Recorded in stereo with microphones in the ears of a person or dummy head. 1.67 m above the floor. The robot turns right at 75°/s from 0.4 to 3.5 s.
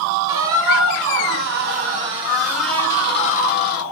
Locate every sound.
0.3 s a squeak: 165° right, 1.2 m; by 3.8 s 65° left, 1.2 m